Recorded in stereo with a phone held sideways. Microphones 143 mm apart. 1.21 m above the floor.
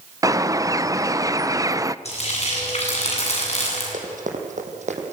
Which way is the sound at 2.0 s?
50° left (ahead or behind).